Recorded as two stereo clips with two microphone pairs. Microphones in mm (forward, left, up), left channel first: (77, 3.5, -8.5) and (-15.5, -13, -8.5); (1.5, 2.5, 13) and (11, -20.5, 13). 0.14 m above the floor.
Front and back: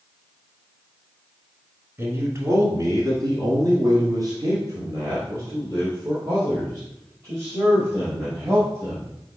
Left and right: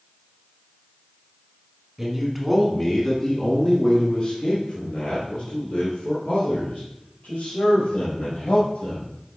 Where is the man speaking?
125° right, 1.3 m; by 9.1 s 130° left, 4.5 m.